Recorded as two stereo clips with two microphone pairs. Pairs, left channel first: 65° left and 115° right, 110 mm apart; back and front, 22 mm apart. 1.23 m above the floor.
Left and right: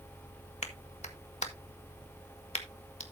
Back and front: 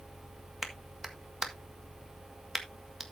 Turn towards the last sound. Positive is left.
turn(degrees=75)